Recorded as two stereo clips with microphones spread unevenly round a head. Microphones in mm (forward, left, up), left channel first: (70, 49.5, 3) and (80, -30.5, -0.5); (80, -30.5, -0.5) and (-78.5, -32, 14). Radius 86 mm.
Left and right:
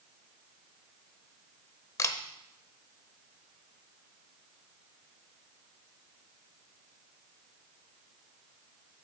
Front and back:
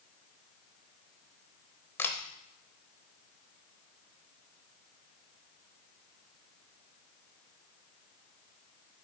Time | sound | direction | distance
2.0 | a camera shutter | 80° left | 0.8 m